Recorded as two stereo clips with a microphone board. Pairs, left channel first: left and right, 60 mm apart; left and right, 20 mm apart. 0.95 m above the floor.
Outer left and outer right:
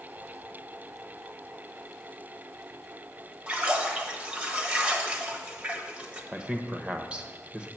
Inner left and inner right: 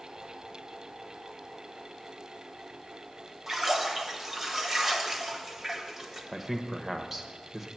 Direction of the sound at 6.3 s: 20° right (ahead or behind).